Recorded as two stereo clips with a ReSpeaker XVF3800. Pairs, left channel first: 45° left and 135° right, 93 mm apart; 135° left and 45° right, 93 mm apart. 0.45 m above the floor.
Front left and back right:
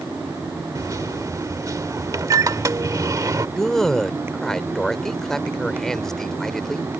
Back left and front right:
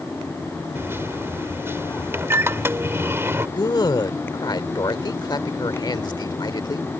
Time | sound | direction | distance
0.8 | a microwave | 100° right | ?
3.6 | a man speaking | 125° left | ?